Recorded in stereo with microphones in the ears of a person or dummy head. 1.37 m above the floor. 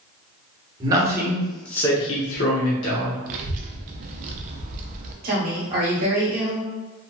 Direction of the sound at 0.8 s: 25° right (ahead or behind).